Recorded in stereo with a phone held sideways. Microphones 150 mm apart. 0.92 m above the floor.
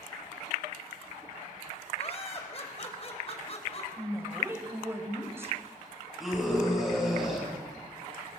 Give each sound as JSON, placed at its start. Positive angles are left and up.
{"t": 2.0, "sound": "laughter", "side_deg": 45, "distance_m": 4.5}
{"t": 4.0, "sound": "a woman speaking", "side_deg": -15, "distance_m": 3.5}
{"t": 6.2, "sound": "a scream", "side_deg": 0, "distance_m": 8.5}